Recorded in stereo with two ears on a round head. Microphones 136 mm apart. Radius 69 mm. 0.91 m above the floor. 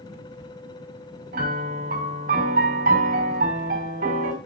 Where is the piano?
65° right (ahead or behind), 4.5 m.